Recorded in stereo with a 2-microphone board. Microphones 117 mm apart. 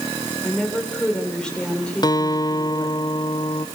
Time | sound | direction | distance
0.4 | a woman speaking | 5° left (ahead or behind) | 5.5 m
2.0 | a guitar | 35° left (ahead or behind) | 0.8 m